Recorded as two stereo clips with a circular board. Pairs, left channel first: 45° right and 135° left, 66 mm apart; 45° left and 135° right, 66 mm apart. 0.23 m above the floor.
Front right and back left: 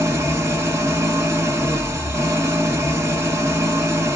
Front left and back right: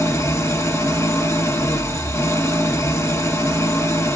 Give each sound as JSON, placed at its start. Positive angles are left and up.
{"t": 0.0, "sound": "an engine running", "azimuth_deg": 90, "distance_m": 1.5}